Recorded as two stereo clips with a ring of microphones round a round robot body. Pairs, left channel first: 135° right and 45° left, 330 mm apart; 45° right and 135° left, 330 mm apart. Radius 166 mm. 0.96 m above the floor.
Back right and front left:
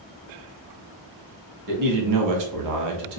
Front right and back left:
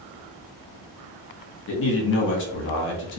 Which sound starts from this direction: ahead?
A man speaking, at 1.7 s.